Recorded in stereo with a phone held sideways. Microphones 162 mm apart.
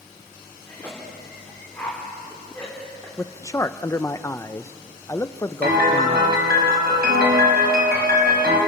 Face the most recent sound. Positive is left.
turn(degrees=-75)  # may be behind; listen again after turning